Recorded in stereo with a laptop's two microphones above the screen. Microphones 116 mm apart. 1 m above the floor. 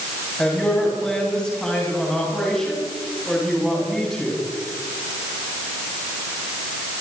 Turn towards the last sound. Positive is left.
turn(degrees=5)  # may be behind; listen again after turning